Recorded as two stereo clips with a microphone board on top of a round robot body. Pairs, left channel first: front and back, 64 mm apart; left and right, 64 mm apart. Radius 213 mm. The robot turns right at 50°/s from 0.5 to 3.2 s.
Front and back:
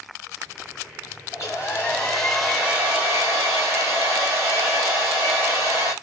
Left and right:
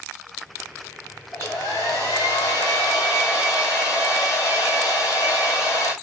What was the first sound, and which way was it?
A hair dryer, 35° left.